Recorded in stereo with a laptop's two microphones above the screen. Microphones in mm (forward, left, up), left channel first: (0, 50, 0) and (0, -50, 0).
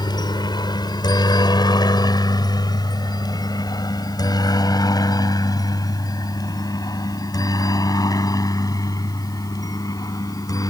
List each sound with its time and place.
0.0 s a helicopter: 45° left (ahead or behind); by 10.7 s 35° left (ahead or behind)